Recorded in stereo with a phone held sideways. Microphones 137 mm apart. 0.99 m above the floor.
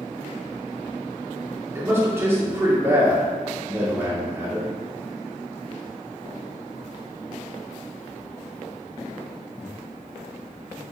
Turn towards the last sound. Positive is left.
turn(degrees=-20)  # may be behind; listen again after turning